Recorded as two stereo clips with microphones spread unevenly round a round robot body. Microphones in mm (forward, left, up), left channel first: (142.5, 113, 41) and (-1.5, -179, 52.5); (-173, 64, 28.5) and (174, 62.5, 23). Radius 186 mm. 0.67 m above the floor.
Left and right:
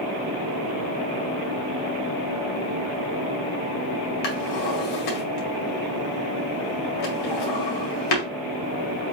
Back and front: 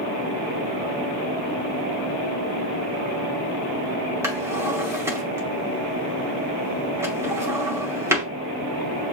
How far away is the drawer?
About 2.0 m.